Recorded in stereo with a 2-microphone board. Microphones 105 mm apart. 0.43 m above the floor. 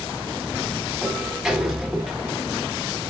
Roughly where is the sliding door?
Centre.